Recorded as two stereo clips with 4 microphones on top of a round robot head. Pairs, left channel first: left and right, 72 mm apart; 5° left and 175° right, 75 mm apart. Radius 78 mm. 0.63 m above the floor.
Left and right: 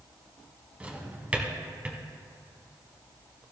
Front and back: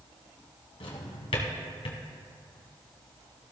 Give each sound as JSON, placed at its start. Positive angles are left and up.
{"t": 0.8, "sound": "a drawer", "azimuth_deg": -15, "distance_m": 1.6}